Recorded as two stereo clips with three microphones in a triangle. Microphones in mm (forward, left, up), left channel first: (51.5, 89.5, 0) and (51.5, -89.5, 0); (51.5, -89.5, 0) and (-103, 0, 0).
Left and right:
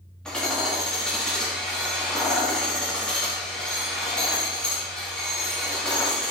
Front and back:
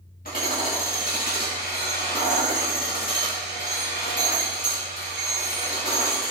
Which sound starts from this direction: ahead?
Hammering, at 0.2 s.